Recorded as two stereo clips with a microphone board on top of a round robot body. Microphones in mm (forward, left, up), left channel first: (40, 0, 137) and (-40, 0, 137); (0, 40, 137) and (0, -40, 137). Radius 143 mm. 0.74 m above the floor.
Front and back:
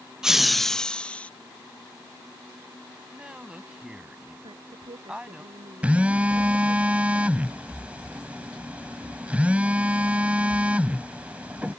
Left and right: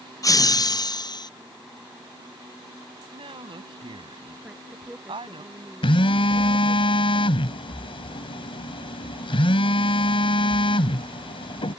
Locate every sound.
0.2 s laughter: 100° left; by 1.3 s 75° left
3.1 s a woman speaking: 100° right
4.4 s a woman speaking: 170° right
5.8 s a phone buzzing: 105° left